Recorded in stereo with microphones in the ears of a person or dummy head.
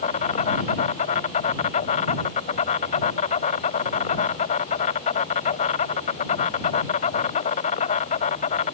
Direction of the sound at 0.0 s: 40° left (ahead or behind).